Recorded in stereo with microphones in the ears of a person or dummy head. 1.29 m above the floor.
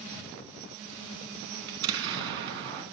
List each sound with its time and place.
1.7 s an explosion: 65° right (ahead or behind), 3 m